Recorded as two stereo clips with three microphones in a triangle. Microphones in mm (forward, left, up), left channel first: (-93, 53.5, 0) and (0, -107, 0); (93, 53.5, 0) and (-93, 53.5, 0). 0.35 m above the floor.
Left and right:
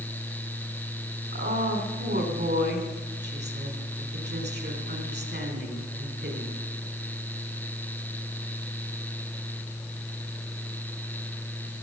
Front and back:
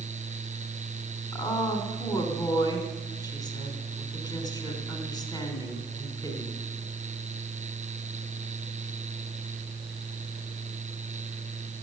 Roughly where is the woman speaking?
Ahead right.